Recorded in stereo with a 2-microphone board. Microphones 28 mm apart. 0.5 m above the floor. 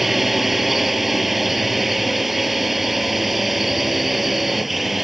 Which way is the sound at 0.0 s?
5° right (ahead or behind).